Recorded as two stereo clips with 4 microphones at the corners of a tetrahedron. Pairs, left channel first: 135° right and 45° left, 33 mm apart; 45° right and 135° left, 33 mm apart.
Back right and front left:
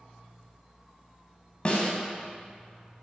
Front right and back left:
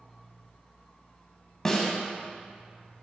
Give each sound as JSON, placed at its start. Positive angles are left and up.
{"t": 1.6, "sound": "a snare drum", "azimuth_deg": -105, "distance_m": 1.2}